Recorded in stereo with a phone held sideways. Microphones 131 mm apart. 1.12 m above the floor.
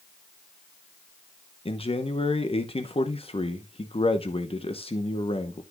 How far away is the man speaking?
About 0.9 m.